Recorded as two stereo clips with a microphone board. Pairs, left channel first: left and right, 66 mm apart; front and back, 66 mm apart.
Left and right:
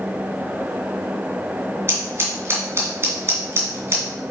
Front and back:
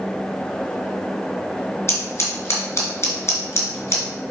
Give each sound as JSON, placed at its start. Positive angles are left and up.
{"t": 1.9, "sound": "scissors", "azimuth_deg": -45, "distance_m": 2.5}